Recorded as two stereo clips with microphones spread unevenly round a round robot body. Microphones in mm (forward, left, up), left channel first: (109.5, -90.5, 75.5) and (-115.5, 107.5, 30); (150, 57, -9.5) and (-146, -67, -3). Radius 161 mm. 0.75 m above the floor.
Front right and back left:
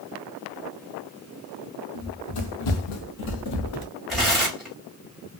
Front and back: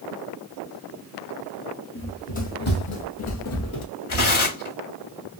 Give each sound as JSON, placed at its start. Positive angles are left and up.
{"t": 1.9, "sound": "running footsteps", "azimuth_deg": -50, "distance_m": 1.8}
{"t": 4.1, "sound": "tearing paper", "azimuth_deg": 55, "distance_m": 1.8}